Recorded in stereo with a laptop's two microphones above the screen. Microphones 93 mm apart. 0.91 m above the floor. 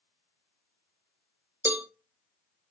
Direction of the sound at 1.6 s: 20° right (ahead or behind).